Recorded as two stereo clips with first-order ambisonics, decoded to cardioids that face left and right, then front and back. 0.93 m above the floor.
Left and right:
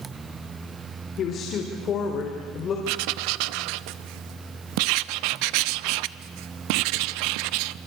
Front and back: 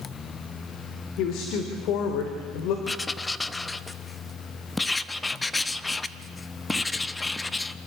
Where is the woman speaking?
35° left, 3 m; by 2.8 s 30° left, 3.5 m.